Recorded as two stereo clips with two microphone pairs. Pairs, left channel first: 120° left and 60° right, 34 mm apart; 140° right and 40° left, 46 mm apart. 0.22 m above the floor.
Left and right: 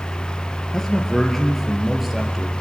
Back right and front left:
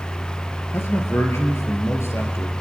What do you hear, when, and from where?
0.7 s a man speaking: 165° right, 3.5 m; by 2.5 s 145° right, 4 m